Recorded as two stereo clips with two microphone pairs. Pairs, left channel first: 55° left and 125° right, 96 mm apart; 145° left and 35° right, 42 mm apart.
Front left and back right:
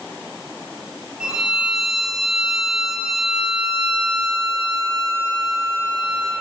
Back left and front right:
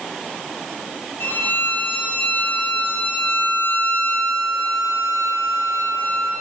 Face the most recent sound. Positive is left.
turn(degrees=160)